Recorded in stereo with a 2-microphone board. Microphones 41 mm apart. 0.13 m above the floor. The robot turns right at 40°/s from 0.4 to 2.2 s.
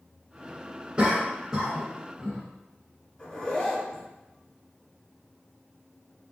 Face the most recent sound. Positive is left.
turn(degrees=15)  # may be behind; listen again after turning